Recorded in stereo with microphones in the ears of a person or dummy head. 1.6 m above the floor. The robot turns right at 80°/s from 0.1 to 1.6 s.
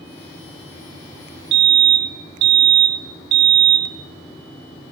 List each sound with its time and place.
1.5 s a fire alarm: 65° right (ahead or behind), 1.7 m; by 4.9 s 60° right (ahead or behind), 1.7 m